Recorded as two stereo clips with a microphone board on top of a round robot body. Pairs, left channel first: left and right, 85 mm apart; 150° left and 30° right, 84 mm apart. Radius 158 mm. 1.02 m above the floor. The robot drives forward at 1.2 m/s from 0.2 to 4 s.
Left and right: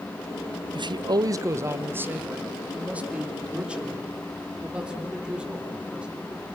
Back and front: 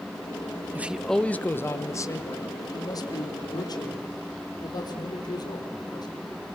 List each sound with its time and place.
0.8 s a man speaking: 95° right, 0.9 m; by 6.1 s 170° right, 4 m